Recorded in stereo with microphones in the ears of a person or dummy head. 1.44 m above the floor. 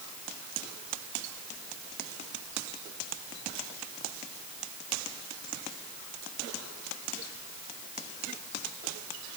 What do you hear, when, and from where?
Only background noise.